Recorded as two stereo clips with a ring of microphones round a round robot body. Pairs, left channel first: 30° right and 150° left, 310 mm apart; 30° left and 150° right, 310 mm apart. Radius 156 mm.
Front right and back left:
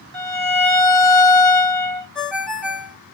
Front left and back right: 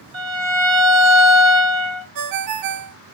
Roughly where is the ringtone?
Behind right.